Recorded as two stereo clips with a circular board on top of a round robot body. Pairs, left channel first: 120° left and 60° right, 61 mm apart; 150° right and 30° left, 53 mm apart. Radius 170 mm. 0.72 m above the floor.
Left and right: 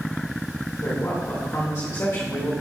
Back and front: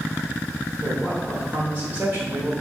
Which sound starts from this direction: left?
A man speaking, at 0.8 s.